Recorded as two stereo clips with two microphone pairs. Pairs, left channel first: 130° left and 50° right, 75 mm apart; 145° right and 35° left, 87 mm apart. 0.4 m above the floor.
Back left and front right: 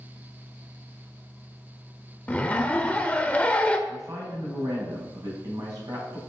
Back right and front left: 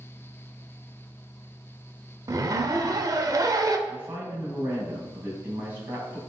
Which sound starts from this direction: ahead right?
A woman speaking, at 3.9 s.